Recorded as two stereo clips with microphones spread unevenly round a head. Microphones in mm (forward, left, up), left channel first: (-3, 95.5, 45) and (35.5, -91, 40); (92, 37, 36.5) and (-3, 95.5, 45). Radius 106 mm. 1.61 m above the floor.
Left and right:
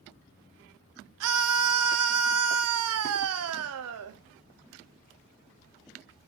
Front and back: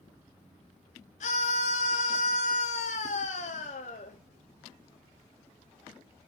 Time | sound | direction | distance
1.2 | a scream | 75° right | 0.8 m